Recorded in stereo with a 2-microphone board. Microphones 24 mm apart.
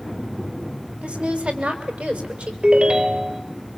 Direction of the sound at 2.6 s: 45° right (ahead or behind).